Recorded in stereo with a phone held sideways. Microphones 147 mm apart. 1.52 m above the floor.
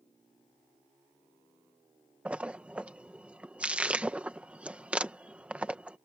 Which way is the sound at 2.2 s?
10° right (ahead or behind).